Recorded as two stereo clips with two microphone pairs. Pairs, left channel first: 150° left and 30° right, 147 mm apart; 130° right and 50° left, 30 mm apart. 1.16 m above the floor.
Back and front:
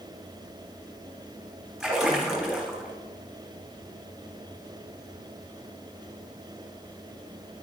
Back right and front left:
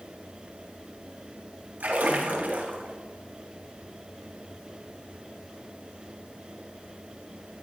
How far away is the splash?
About 3 m.